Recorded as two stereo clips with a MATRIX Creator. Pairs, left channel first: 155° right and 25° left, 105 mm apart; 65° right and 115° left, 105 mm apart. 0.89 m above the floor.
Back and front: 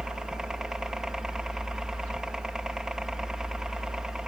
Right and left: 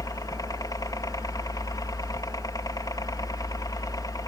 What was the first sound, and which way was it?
A helicopter, 55° right.